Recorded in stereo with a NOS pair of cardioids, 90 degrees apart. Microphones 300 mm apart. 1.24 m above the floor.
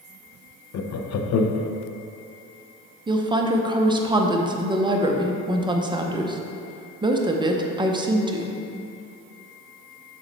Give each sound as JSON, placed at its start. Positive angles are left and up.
{"t": 0.7, "sound": "laughter", "azimuth_deg": 60, "distance_m": 0.7}
{"t": 3.1, "sound": "a woman speaking", "azimuth_deg": -15, "distance_m": 0.8}